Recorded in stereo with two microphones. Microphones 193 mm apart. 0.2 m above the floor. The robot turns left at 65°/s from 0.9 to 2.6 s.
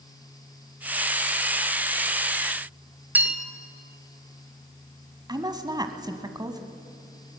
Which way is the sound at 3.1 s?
10° right (ahead or behind).